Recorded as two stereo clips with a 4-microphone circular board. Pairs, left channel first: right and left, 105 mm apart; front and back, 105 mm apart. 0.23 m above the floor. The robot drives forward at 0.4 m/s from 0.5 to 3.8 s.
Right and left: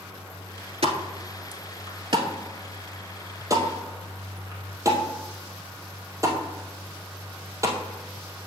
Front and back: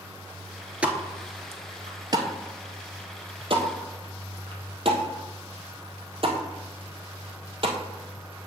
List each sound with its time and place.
0.8 s a pop: 100° left, 0.8 m; by 7.8 s 150° left, 1.6 m